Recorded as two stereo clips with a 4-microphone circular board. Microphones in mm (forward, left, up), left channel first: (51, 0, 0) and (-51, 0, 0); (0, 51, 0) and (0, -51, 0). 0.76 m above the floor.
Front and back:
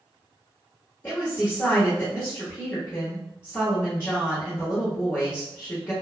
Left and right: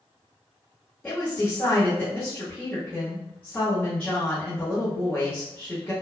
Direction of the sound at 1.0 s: 35° left.